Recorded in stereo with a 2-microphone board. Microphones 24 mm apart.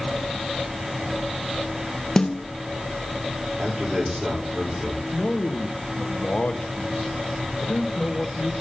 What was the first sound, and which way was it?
A snare drum, 25° left (ahead or behind).